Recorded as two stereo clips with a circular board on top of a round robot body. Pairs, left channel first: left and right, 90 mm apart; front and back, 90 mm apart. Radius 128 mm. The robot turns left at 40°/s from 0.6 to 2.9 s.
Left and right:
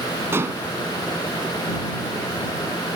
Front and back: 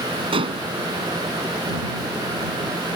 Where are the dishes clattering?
155° right.